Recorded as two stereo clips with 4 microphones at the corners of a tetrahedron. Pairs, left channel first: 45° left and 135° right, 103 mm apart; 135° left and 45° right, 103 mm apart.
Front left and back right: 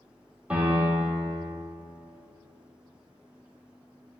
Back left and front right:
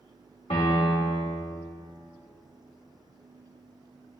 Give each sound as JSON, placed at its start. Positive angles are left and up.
{"t": 0.5, "sound": "a piano", "azimuth_deg": 145, "distance_m": 1.3}